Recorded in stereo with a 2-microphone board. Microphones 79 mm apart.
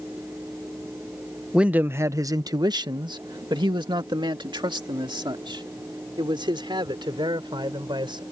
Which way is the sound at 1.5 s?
10° right (ahead or behind).